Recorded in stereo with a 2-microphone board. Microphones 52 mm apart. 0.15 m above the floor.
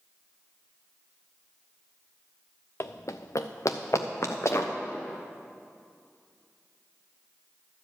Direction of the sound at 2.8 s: 55° left (ahead or behind).